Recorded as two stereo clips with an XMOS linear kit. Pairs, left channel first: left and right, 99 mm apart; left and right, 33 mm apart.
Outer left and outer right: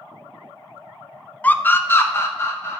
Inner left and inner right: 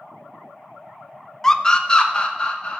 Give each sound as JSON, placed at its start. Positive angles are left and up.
{"t": 1.4, "sound": "a scream", "side_deg": 15, "distance_m": 0.5}